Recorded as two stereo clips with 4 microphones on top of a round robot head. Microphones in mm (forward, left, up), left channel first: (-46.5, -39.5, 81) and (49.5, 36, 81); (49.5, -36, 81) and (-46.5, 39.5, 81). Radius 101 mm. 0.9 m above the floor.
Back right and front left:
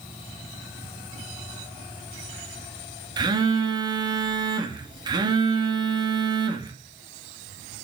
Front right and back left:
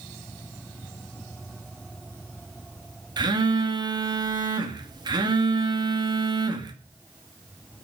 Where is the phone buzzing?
90° left, 2 m.